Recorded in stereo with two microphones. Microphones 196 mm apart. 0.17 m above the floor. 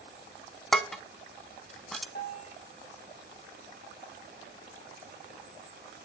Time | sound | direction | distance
0.7 | dishes clattering | centre (ahead or behind) | 0.7 m
2.1 | a bell | 50° left (ahead or behind) | 4 m